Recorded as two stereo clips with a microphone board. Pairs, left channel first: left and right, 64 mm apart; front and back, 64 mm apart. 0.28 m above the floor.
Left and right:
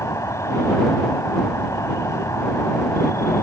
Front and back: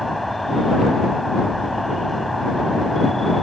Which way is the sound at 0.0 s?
85° left.